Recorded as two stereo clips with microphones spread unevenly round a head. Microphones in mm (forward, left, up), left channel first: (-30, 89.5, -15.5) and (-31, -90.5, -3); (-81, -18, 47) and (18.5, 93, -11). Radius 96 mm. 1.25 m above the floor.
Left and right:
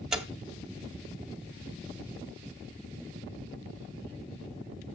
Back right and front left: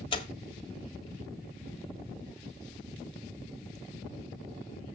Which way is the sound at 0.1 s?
175° right.